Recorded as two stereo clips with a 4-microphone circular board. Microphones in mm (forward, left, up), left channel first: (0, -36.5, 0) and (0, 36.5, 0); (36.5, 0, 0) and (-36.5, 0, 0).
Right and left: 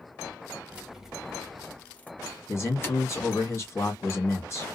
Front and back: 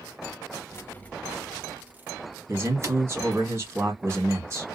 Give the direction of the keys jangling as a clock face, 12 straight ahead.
11 o'clock.